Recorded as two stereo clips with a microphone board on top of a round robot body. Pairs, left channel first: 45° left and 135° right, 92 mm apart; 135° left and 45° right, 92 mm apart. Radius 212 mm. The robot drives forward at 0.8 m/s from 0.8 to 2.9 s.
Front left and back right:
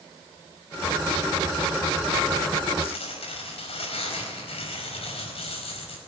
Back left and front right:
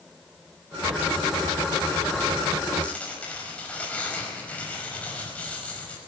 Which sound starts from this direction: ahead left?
Tearing paper, at 2.8 s.